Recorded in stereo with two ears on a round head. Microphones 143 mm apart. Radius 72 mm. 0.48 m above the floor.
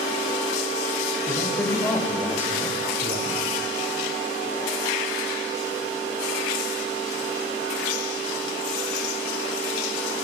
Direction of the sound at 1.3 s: 20° left (ahead or behind).